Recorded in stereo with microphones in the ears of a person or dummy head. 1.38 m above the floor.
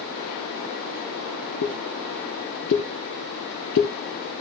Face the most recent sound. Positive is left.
turn(degrees=60)  # may be behind; listen again after turning